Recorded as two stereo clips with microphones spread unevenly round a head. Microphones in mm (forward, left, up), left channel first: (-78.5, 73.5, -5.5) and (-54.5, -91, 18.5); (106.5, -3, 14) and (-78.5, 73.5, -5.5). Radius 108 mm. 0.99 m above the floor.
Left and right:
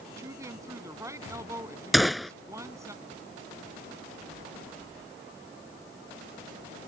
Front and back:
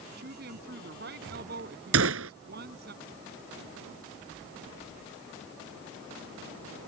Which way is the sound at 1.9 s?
170° right.